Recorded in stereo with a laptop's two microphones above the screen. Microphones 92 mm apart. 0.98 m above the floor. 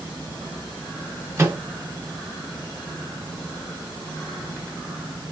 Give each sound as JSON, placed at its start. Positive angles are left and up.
{"t": 1.4, "sound": "a microwave", "side_deg": -30, "distance_m": 0.7}